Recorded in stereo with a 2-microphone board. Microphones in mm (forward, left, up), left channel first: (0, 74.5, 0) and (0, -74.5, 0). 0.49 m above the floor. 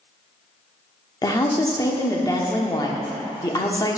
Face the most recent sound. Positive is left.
turn(degrees=25)  # may be behind; listen again after turning